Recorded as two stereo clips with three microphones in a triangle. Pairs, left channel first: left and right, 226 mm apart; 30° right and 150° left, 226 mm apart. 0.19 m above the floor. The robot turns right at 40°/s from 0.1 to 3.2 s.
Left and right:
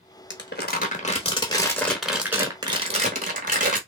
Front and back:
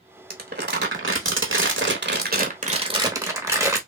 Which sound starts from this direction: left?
Crumpling, at 0.3 s.